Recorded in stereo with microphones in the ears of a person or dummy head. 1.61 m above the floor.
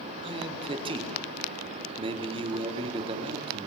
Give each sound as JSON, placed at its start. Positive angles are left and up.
{"t": 0.2, "sound": "a man speaking", "side_deg": -25, "distance_m": 4.5}